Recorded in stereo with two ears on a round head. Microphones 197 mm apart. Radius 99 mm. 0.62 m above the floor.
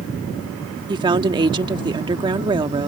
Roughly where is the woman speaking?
Right.